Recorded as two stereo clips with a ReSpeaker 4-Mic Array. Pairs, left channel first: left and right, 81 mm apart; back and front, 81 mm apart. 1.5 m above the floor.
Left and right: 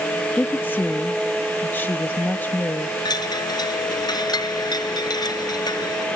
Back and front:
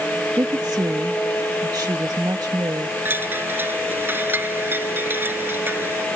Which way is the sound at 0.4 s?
25° left.